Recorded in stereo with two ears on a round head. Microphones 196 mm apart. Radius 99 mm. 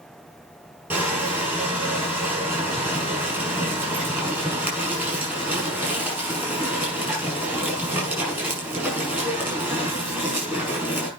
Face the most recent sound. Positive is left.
turn(degrees=-10)  # may be behind; listen again after turning